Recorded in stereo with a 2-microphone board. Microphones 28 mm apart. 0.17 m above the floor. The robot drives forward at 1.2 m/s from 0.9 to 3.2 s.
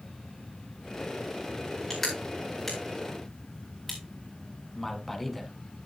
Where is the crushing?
5° left (ahead or behind), 4.5 m.